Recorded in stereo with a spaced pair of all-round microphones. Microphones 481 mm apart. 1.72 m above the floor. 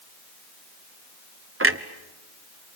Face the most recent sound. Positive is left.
turn(degrees=-25)  # may be behind; listen again after turning